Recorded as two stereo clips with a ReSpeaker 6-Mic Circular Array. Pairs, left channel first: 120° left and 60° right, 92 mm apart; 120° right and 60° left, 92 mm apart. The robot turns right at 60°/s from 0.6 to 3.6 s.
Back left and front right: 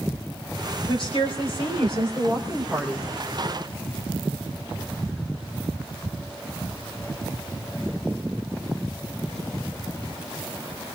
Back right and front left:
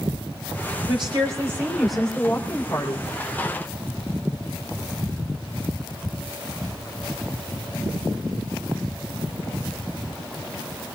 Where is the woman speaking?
85° left, 3 m; by 3.1 s 140° right, 3 m.